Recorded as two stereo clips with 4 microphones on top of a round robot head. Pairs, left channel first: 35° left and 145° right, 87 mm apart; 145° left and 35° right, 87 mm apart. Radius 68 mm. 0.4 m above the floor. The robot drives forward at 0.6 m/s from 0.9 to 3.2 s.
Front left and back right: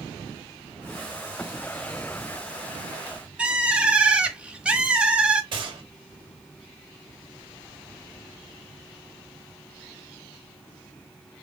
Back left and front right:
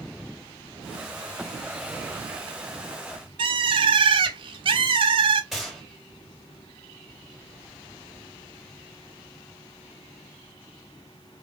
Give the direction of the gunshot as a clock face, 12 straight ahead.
4 o'clock.